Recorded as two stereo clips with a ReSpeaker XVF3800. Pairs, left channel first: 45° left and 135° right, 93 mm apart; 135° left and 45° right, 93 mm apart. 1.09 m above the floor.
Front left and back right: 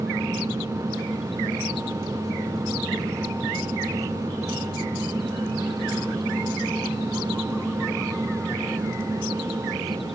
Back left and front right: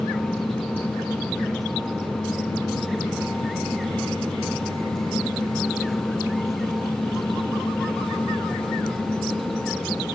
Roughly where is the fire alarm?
I don't hear a fire alarm.